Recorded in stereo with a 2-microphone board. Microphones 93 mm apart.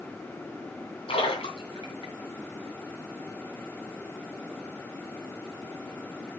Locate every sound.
1.1 s a splash: 85° left, 2.5 m